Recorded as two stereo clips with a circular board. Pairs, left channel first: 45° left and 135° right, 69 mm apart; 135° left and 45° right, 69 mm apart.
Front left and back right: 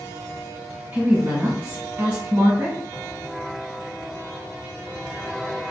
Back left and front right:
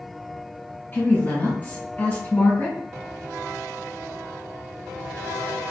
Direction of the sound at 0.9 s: 175° left.